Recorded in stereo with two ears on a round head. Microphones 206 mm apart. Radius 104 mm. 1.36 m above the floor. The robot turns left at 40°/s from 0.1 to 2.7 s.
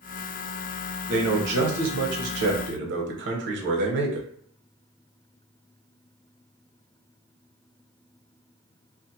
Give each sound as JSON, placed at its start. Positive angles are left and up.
{"t": 1.1, "sound": "a man speaking", "azimuth_deg": -60, "distance_m": 0.8}